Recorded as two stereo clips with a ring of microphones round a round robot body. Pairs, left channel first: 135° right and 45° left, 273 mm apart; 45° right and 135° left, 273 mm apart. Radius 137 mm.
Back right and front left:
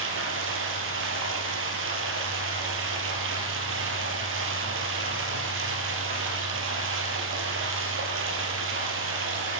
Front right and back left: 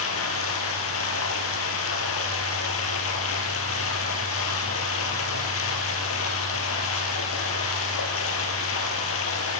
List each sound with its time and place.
0.0 s running water: 5° right, 5 m